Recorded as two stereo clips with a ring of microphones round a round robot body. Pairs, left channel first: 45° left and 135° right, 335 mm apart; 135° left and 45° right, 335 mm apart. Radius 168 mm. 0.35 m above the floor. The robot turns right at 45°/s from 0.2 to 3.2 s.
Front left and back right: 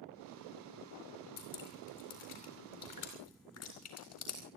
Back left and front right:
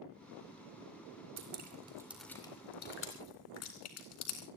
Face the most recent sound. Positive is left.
turn(degrees=90)